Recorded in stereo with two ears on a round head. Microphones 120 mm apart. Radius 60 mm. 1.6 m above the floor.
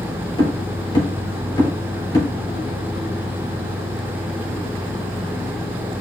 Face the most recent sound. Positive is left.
turn(degrees=30)  # may be behind; listen again after turning